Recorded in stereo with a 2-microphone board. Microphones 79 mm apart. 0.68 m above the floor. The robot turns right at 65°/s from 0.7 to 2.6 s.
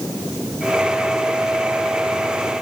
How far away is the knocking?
I don't hear knocking.